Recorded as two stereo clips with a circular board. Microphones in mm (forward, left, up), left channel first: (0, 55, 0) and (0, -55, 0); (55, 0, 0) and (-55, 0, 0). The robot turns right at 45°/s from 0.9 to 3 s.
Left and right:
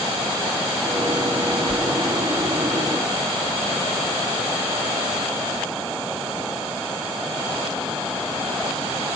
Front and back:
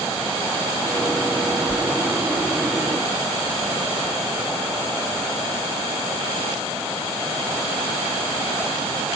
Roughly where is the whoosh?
Ahead.